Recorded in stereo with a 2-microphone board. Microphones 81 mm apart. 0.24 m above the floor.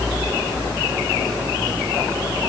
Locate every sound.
Only background noise.